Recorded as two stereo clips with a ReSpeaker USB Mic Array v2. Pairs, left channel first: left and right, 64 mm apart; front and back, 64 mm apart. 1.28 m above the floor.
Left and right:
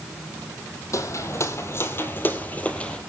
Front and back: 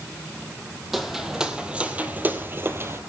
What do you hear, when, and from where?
0.9 s footsteps: 95° left, 2 m; by 3.0 s 160° left, 1.7 m